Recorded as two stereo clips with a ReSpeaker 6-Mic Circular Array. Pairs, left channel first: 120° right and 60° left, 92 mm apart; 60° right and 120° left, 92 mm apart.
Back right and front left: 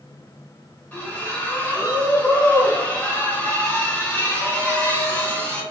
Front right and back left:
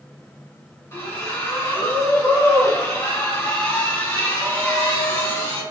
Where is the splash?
65° right, 1.0 m.